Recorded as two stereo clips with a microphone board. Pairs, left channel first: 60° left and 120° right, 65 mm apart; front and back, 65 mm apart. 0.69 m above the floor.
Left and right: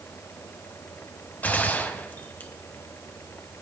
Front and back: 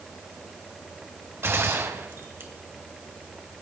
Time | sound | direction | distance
1.4 | a gunshot | 125° left | 1.5 m